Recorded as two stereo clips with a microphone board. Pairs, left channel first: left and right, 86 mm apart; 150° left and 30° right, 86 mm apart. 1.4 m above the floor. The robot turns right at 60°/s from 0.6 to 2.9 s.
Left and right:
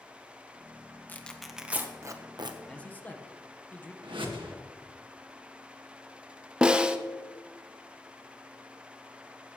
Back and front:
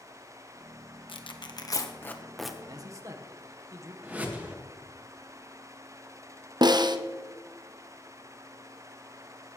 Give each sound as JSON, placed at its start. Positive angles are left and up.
{"t": 1.1, "sound": "tearing paper", "azimuth_deg": 160, "distance_m": 1.1}
{"t": 2.7, "sound": "a man speaking", "azimuth_deg": 10, "distance_m": 1.2}
{"t": 4.0, "sound": "a whoosh", "azimuth_deg": -100, "distance_m": 1.7}
{"t": 6.6, "sound": "a snare drum", "azimuth_deg": -15, "distance_m": 0.7}